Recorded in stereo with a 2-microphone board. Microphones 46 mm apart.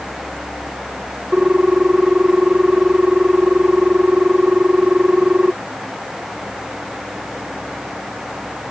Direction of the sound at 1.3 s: 25° right (ahead or behind).